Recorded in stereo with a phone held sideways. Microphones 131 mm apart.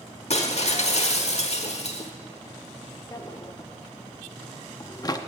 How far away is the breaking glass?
About 1.1 m.